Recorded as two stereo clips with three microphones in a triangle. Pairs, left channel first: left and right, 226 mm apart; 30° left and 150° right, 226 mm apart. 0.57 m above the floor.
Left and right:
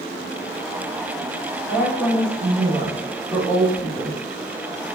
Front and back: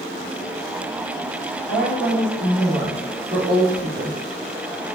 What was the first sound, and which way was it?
A woman speaking, 170° right.